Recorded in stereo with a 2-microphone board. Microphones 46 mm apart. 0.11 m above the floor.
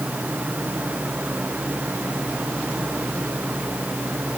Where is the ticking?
I don't hear ticking.